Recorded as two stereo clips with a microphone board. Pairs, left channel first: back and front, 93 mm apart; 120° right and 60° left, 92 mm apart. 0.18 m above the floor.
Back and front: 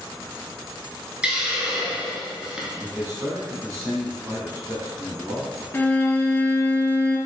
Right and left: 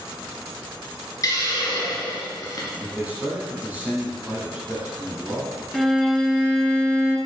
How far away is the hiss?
About 1.3 m.